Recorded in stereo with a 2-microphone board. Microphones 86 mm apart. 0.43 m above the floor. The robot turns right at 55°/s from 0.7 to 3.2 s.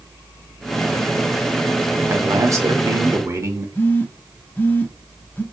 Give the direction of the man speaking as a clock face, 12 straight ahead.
4 o'clock.